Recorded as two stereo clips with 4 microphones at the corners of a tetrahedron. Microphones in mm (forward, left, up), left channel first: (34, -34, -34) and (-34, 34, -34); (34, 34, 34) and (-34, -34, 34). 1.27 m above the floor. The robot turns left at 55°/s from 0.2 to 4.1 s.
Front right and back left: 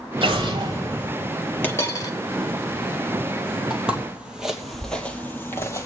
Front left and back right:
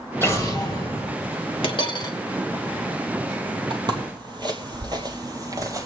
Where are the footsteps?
140° right, 2.0 m; by 5.9 s 90° right, 1.8 m.